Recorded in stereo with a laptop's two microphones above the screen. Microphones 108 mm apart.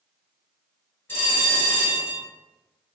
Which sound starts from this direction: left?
A bell, at 1.1 s.